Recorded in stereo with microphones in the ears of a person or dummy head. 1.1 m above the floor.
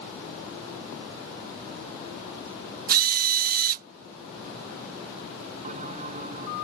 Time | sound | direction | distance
2.9 | a drill | 50° right (ahead or behind) | ?
5.6 | a bell | 40° right (ahead or behind) | ?